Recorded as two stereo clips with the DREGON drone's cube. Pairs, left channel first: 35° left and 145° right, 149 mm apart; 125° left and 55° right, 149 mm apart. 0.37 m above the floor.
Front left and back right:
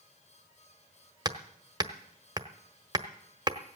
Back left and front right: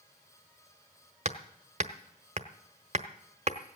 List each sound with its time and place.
1.2 s hammering: 85° right, 0.9 m